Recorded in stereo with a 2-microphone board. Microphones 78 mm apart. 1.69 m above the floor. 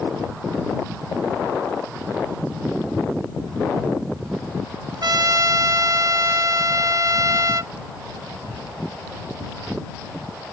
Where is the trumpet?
55° right (ahead or behind).